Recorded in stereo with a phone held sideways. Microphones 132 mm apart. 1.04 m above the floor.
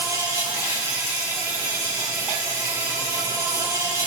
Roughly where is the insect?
Right.